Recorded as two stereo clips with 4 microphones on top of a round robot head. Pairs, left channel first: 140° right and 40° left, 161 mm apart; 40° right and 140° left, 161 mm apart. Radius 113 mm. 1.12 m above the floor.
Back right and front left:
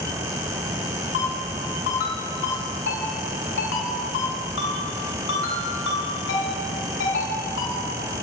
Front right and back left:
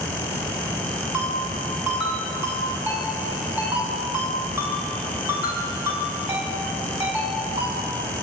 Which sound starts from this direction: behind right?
A ringtone, at 1.1 s.